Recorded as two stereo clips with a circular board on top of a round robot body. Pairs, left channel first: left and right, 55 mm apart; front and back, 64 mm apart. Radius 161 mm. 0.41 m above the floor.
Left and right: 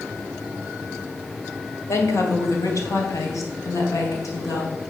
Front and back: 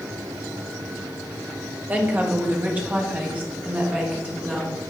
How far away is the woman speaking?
About 2.5 m.